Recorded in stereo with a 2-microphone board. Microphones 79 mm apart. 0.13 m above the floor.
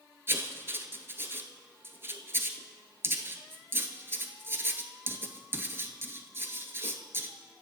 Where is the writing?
30° right (ahead or behind), 0.7 m.